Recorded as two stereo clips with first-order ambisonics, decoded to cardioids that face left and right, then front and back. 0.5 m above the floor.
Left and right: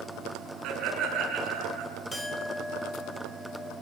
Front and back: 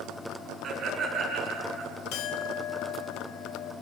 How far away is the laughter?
About 6 m.